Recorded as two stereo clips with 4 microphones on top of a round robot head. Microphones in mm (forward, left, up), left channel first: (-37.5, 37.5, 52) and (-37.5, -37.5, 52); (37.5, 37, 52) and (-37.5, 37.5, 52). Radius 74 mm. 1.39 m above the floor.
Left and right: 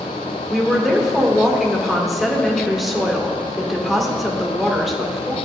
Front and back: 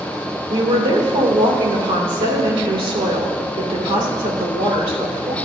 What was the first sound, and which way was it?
A woman speaking, straight behind.